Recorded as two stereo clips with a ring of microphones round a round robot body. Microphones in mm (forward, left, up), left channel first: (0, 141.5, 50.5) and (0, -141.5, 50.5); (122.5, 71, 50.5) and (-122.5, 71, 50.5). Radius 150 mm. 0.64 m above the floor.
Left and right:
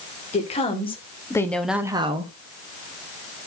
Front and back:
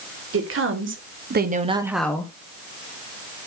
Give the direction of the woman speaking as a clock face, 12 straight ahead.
7 o'clock.